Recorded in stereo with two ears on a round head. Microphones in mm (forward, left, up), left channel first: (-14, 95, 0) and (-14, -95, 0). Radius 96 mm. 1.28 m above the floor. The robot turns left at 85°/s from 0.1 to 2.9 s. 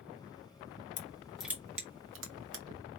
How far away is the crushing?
About 1.0 m.